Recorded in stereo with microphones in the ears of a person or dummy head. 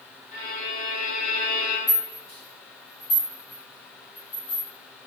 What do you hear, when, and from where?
0.3 s a violin: 60° left (ahead or behind), 1.3 m
1.9 s a rattle: 45° left (ahead or behind), 1.9 m